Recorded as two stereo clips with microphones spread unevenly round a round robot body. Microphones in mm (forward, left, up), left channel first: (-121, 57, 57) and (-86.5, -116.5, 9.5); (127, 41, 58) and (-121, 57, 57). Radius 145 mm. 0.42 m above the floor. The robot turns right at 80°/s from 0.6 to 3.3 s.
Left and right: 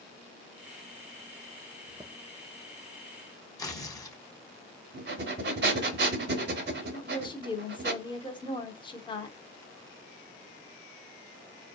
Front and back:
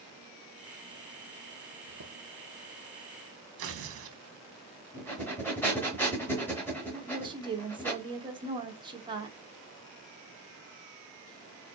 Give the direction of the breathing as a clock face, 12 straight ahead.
3 o'clock.